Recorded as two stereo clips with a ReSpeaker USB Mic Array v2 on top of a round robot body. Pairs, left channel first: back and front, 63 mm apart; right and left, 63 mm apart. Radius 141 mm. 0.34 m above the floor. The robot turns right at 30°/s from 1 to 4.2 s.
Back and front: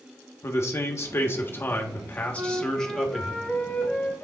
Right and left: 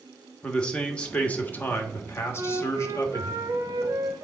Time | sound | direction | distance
0.4 | a man speaking | 160° right | 1.4 m
2.3 | a flute | 60° left | 1.0 m